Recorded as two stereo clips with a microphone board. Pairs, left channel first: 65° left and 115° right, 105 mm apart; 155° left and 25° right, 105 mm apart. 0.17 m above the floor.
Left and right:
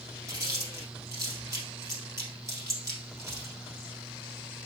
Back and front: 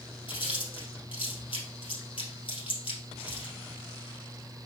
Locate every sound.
0.3 s chewing: 175° right, 2 m